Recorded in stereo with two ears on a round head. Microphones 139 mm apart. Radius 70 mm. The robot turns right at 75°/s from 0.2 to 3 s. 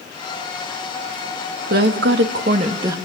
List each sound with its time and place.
1.7 s a woman speaking: 115° right, 2.5 m; by 3.0 s 20° right, 2.5 m